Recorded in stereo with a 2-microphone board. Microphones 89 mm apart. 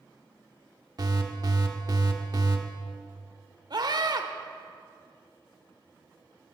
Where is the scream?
55° right (ahead or behind), 1.4 m.